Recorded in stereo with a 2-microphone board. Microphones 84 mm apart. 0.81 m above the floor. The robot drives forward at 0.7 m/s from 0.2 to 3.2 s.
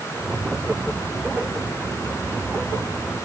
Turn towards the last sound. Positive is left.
No sound to turn to.